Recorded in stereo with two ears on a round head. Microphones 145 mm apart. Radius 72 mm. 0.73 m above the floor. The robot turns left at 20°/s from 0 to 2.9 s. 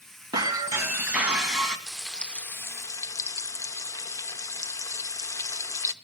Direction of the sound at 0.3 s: 25° right (ahead or behind).